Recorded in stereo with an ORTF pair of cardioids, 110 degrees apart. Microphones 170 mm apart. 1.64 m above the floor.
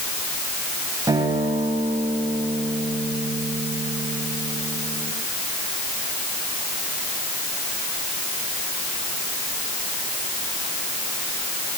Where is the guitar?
20° right, 8 m.